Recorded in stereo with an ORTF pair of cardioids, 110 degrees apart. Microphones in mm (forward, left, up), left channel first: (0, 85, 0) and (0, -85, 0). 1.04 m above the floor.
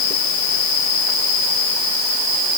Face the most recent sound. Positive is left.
No sound to turn to.